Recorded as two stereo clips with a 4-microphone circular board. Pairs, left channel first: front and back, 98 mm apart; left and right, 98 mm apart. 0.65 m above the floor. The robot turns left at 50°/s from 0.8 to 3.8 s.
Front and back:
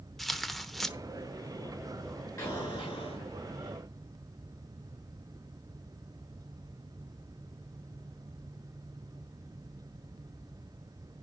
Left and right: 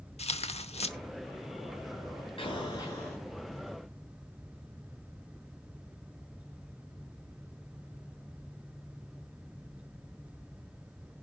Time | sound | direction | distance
0.2 | tearing paper | 90° left | 0.8 m
2.4 | an explosion | 55° left | 7.5 m